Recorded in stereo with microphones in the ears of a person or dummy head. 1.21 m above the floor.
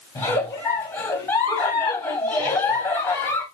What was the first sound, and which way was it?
A giggle, 10° left (ahead or behind).